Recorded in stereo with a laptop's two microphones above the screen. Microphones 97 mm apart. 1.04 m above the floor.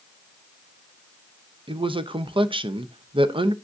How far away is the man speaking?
About 0.6 m.